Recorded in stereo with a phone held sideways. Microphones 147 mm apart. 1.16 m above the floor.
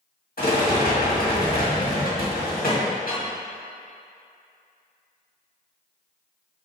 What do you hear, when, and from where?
0.4 s a rattle: 80° left, 1.8 m